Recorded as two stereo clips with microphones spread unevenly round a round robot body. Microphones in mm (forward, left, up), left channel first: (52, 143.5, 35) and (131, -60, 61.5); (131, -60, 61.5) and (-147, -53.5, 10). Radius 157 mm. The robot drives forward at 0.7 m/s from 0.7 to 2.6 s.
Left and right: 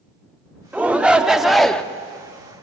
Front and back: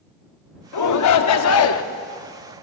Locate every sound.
0.7 s a shout: 20° left, 1.9 m; by 1.8 s 35° left, 1.3 m